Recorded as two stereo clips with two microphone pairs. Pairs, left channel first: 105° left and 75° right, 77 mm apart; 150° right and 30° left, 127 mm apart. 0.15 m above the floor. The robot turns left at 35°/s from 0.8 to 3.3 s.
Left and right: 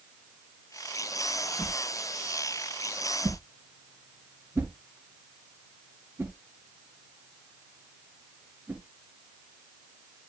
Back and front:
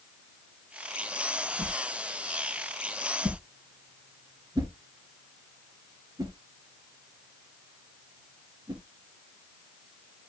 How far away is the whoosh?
About 2.5 m.